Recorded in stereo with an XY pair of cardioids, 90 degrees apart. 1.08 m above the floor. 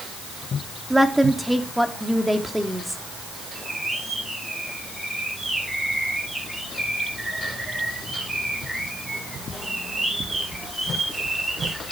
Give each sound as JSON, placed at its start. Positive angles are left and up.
{"t": 0.9, "sound": "a woman speaking", "azimuth_deg": -5, "distance_m": 3.0}
{"t": 3.5, "sound": "a bird", "azimuth_deg": -15, "distance_m": 8.5}